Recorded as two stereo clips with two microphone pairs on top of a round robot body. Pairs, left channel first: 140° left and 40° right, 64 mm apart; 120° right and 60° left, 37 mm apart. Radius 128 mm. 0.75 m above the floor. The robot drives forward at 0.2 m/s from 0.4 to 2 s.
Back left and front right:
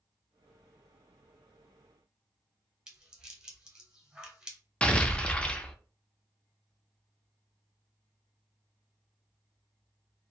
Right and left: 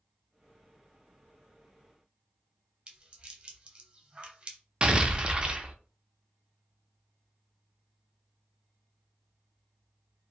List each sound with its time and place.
2.9 s a rattle: 40° left, 1.0 m
4.8 s an explosion: 85° left, 0.5 m